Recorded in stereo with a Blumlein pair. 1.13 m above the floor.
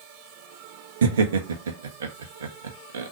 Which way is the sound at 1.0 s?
65° right.